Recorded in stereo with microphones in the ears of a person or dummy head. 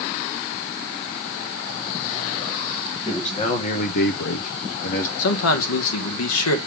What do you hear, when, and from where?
3.0 s a man speaking: 30° left (ahead or behind), 2.5 m; by 5.1 s 40° left (ahead or behind), 1.2 m
5.2 s a man speaking: 85° left, 1.8 m